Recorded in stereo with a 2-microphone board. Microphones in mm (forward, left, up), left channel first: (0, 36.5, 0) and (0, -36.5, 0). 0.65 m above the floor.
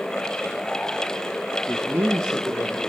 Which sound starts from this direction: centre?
A man speaking, at 1.7 s.